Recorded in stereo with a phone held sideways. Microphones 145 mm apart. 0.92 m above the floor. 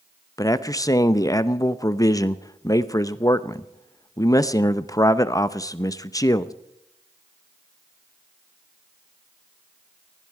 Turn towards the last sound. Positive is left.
turn(degrees=25)  # may be behind; listen again after turning